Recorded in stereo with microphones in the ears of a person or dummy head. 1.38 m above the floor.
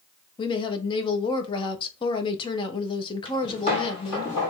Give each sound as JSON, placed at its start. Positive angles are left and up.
{"t": 0.4, "sound": "a woman speaking", "side_deg": 30, "distance_m": 0.7}
{"t": 3.2, "sound": "footsteps", "side_deg": 45, "distance_m": 2.0}